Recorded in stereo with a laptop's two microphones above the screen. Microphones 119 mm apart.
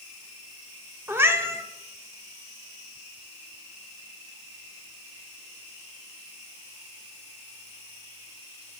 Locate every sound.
1.1 s a cat meowing: 20° right (ahead or behind), 0.9 m